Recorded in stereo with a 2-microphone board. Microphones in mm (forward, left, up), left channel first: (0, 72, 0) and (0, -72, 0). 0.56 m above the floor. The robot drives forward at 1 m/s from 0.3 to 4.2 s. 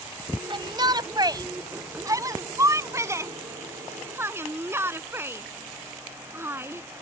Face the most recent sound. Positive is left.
turn(degrees=-15)  # may be behind; listen again after turning